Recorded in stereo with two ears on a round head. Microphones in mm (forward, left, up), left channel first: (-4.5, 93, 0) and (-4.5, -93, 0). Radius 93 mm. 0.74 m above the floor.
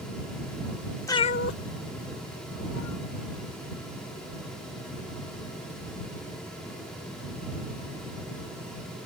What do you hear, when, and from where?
1.1 s a cat meowing: 15° left (ahead or behind); by 3.1 s 80° left